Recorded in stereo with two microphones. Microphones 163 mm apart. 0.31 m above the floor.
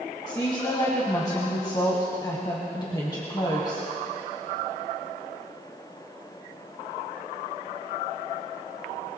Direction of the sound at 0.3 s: 25° left (ahead or behind).